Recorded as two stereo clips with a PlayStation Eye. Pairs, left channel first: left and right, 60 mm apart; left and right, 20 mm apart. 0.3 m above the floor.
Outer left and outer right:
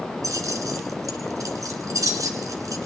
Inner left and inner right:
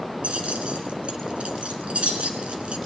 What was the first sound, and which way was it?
Keys jangling, 75° right (ahead or behind).